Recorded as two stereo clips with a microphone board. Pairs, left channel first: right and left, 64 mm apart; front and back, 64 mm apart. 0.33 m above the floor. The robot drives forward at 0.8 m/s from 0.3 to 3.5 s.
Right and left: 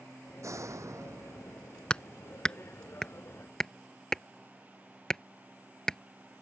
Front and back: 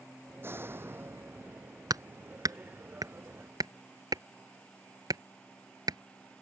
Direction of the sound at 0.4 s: 125° left.